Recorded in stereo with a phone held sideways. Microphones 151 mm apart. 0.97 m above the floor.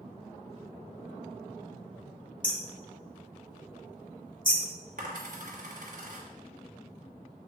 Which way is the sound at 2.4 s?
65° left (ahead or behind).